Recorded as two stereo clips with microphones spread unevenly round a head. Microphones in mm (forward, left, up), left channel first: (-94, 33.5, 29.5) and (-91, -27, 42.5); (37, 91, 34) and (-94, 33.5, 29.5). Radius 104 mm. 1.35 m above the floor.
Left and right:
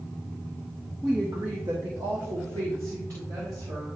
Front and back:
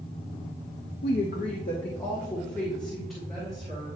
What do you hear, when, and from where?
1.0 s a woman speaking: straight ahead, 0.5 m; by 4.0 s 70° right, 2.5 m